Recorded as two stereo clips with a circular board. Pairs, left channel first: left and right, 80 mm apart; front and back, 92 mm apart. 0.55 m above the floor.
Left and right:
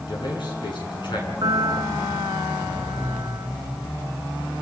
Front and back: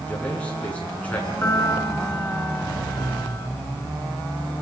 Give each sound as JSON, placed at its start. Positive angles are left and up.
{"t": 0.1, "sound": "a man speaking", "azimuth_deg": 75, "distance_m": 7.5}
{"t": 1.4, "sound": "a piano", "azimuth_deg": -65, "distance_m": 2.5}